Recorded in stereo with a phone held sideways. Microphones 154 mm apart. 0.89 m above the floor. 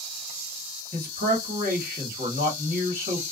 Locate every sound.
0.9 s a man speaking: 65° right (ahead or behind), 1.4 m